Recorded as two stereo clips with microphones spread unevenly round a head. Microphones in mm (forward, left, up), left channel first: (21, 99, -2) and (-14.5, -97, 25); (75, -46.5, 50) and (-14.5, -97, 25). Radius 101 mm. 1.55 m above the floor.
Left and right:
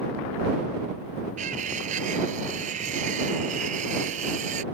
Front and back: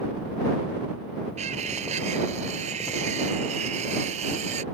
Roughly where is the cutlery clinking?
Behind right.